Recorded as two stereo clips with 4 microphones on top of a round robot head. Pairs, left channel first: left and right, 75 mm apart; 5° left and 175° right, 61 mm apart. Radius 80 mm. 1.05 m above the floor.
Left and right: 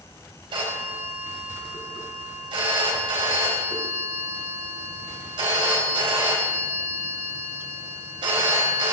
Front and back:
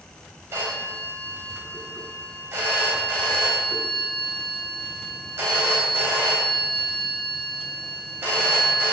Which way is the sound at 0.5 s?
115° right.